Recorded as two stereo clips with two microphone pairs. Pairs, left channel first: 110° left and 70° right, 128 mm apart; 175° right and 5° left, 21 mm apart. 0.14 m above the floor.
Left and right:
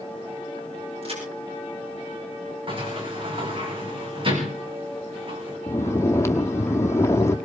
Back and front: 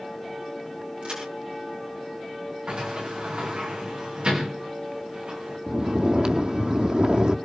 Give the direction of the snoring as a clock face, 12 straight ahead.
11 o'clock.